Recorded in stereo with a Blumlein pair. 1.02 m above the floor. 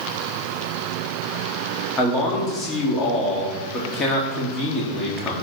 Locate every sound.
2.0 s a man speaking: 15° left, 2.0 m